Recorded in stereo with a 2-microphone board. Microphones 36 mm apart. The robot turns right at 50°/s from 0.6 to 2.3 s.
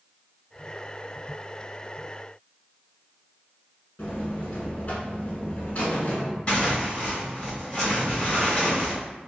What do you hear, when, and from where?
4.0 s a buzzer: 45° left (ahead or behind), 0.9 m
6.5 s tearing paper: 30° left (ahead or behind), 1.8 m